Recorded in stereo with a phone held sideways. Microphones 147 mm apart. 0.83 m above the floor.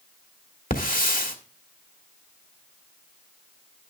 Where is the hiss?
75° left (ahead or behind), 1.4 m.